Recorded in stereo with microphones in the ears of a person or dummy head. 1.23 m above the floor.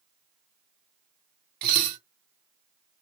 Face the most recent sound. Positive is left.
turn(degrees=-55)  # may be behind; listen again after turning